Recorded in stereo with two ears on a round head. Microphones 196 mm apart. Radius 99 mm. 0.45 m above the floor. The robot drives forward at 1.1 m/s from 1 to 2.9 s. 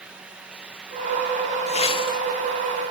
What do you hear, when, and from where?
1.7 s a whoosh: 30° left (ahead or behind), 1.5 m; by 2.2 s 20° left (ahead or behind), 2.0 m